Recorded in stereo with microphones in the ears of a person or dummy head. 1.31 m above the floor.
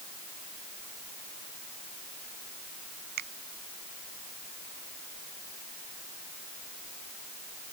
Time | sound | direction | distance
3.2 | a finger snap | 60° right (ahead or behind) | ?